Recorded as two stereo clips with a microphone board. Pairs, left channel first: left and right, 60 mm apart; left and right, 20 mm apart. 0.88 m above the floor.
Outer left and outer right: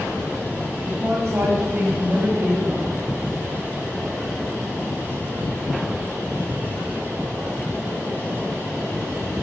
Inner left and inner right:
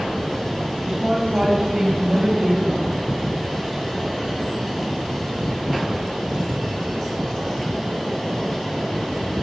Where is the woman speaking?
40° right (ahead or behind), 6.5 m; by 2.9 s 35° right (ahead or behind), 4 m.